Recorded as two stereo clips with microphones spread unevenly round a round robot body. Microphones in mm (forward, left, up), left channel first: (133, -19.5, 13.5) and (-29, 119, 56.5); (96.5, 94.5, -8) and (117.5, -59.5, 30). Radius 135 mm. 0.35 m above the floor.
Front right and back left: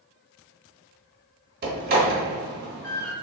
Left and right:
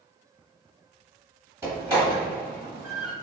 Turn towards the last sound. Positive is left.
turn(degrees=-165)